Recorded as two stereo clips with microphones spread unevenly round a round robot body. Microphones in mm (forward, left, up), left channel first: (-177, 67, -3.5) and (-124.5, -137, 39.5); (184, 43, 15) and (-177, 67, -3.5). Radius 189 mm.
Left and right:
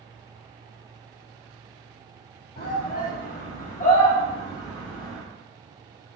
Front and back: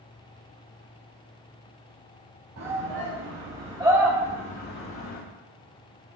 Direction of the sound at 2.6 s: 135° left.